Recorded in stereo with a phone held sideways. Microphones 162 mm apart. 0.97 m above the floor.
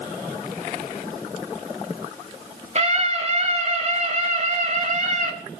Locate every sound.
2.8 s a scream: 45° right (ahead or behind), 6.5 m; by 5.3 s 50° right (ahead or behind), 5 m